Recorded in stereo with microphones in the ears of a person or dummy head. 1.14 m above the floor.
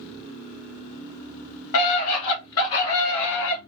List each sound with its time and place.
1.7 s a scream: 70° left (ahead or behind), 2 m; by 3.6 s 60° left (ahead or behind), 1.5 m